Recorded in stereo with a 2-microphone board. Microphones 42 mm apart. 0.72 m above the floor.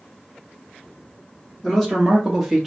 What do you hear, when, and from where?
1.6 s a man speaking: 5° left (ahead or behind), 1.0 m; by 2.7 s 5° right (ahead or behind), 0.9 m